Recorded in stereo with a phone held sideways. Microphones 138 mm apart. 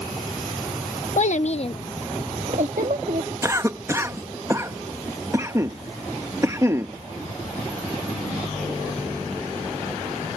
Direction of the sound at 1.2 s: 60° left (ahead or behind).